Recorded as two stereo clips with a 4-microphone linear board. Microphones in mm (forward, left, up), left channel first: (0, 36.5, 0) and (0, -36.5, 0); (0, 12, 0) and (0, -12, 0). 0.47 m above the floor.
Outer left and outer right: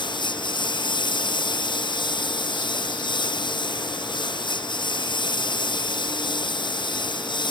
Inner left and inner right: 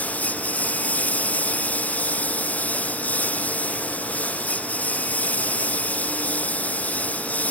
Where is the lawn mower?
85° left.